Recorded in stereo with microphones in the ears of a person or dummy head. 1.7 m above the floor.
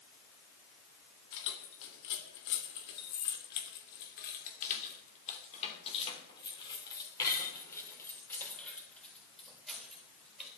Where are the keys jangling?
65° left (ahead or behind), 3.5 m; by 10.5 s 5° right (ahead or behind), 4.5 m.